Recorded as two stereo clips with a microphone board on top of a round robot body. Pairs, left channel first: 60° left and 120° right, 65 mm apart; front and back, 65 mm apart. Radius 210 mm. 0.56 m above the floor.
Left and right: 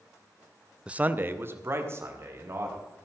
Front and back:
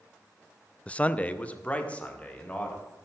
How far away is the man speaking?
About 0.7 m.